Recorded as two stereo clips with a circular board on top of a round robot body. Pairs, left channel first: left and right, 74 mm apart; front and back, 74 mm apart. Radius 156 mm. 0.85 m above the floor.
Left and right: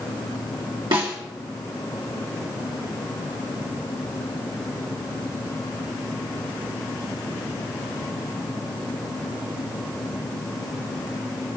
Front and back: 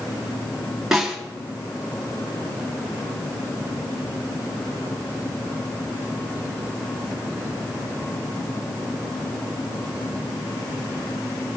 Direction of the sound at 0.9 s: 95° right.